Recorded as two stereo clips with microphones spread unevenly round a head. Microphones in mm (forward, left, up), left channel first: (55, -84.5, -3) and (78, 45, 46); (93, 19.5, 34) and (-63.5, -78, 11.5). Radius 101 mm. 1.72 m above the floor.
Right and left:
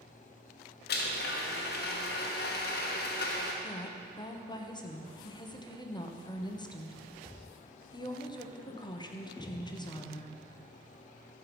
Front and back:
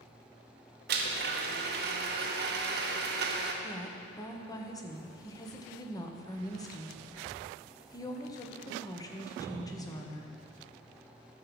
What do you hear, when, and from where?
0.9 s a blender: 125° right, 1.1 m
3.6 s a woman speaking: 40° right, 1.3 m